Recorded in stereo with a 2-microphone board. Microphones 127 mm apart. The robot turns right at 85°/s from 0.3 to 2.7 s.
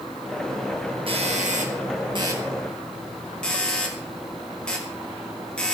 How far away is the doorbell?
About 5.5 m.